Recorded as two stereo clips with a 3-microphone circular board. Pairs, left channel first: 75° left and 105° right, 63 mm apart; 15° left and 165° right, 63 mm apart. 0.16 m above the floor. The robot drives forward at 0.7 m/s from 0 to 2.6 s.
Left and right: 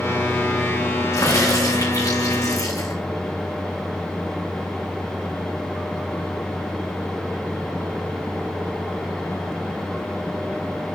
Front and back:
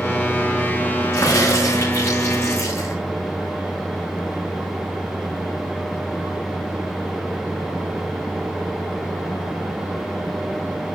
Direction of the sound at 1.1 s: 50° left.